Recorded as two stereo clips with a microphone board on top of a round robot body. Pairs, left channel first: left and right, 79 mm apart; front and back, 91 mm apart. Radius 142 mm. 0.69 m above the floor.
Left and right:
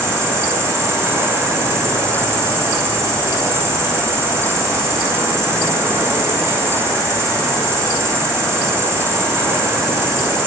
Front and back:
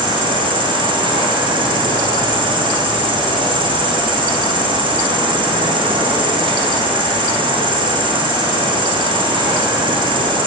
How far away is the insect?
About 0.9 m.